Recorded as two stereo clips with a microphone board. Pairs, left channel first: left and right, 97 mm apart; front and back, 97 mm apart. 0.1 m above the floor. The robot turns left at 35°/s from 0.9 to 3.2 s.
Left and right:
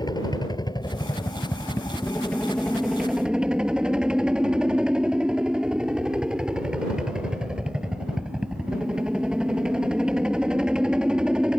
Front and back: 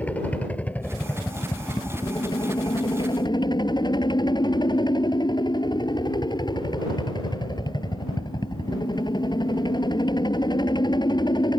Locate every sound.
0.0 s a helicopter: 70° left; by 11.6 s 10° right